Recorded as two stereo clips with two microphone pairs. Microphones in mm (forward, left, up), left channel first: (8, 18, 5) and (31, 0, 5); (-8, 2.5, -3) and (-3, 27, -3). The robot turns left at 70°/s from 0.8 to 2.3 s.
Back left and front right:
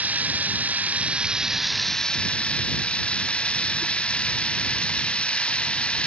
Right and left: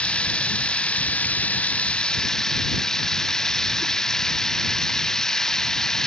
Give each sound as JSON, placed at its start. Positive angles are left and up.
{"t": 0.0, "sound": "running water", "azimuth_deg": -65}